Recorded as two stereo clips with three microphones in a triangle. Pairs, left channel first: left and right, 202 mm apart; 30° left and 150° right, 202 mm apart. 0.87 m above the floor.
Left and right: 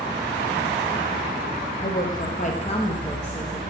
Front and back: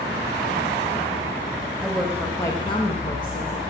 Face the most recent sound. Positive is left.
turn(degrees=0)